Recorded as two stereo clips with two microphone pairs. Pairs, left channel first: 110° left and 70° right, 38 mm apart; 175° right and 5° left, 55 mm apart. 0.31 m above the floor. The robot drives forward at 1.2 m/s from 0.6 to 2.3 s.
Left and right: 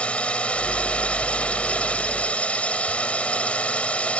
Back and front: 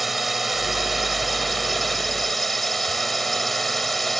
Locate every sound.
0.0 s a drone: 90° left; by 4.2 s 100° left